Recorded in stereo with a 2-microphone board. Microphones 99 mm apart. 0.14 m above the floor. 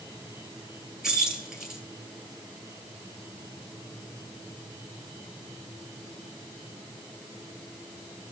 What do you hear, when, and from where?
1.0 s keys jangling: 5° right (ahead or behind), 1.9 m